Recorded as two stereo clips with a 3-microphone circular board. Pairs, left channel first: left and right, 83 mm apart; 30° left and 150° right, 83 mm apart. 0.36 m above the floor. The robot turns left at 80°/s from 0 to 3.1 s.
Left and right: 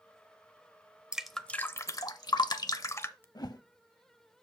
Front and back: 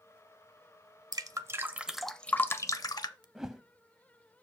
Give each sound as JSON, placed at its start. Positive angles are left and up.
{"t": 1.1, "sound": "dripping", "azimuth_deg": -170, "distance_m": 0.6}
{"t": 3.4, "sound": "a whoosh", "azimuth_deg": 125, "distance_m": 0.5}